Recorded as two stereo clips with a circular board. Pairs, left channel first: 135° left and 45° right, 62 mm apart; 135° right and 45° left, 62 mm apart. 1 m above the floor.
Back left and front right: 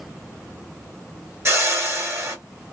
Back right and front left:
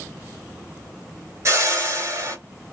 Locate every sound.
1.4 s a whoosh: 5° left, 1.5 m